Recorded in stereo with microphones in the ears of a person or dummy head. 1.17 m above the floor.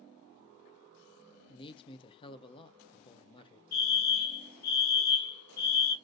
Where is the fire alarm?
50° left (ahead or behind), 1.6 m.